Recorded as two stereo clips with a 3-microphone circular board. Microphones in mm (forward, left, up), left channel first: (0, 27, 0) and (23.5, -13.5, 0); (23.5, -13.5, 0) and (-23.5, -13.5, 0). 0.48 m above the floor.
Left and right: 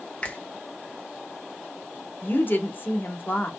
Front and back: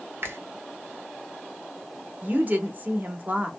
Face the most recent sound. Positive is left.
turn(degrees=140)